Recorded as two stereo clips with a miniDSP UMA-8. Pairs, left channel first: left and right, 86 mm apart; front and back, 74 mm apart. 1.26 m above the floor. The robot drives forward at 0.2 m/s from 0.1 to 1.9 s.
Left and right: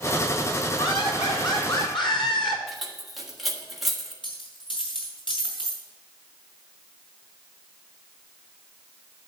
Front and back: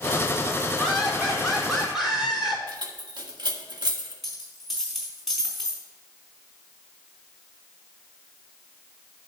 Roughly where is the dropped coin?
Left.